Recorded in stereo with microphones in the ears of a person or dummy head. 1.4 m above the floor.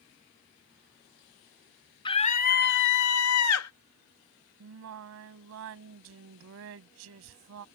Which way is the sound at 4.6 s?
65° right (ahead or behind).